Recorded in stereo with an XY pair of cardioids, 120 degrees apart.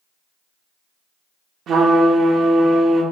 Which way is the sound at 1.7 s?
60° right.